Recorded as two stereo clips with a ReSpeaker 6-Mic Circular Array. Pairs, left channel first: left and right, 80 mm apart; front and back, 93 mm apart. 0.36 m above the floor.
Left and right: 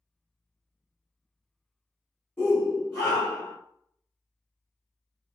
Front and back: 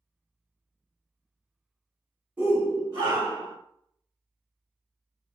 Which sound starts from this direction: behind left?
A shout, at 2.4 s.